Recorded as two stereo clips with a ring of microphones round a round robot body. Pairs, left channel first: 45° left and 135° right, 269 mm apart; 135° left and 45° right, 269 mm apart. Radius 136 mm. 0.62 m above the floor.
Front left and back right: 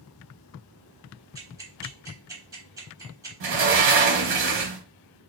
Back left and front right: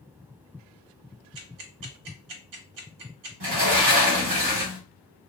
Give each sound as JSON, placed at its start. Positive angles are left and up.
{"t": 1.4, "sound": "ticking", "azimuth_deg": -55, "distance_m": 0.8}
{"t": 3.4, "sound": "a sliding door", "azimuth_deg": -90, "distance_m": 1.3}